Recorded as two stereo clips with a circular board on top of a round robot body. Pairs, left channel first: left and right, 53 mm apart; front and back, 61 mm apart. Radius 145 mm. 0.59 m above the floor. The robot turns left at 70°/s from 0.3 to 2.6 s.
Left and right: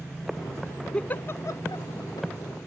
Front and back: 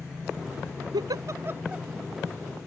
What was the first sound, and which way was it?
A giggle, 165° left.